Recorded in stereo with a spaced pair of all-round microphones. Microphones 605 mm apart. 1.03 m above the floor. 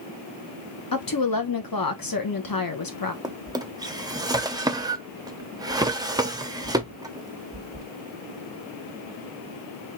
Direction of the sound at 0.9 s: 35° left (ahead or behind).